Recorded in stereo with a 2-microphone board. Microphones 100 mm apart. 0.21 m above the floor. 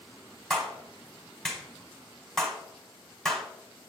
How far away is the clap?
About 1.2 m.